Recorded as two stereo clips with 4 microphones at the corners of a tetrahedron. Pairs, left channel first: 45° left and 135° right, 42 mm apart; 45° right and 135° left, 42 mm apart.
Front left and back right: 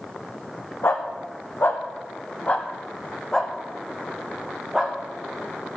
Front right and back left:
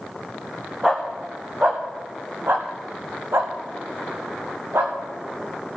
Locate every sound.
0.8 s a dog barking: 55° left, 3 m; by 4.9 s 145° left, 3.5 m